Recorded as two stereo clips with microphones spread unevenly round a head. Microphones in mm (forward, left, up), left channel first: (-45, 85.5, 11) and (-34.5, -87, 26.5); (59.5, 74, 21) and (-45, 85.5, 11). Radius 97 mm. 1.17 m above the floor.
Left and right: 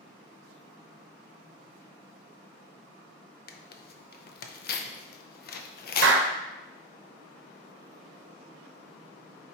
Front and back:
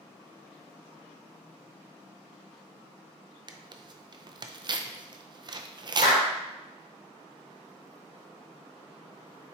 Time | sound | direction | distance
3.5 | tearing paper | 125° left | 0.6 m
6.0 | a clap | 55° right | 0.8 m